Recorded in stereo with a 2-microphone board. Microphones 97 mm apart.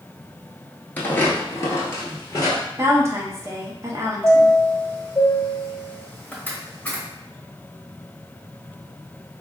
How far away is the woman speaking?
About 0.6 m.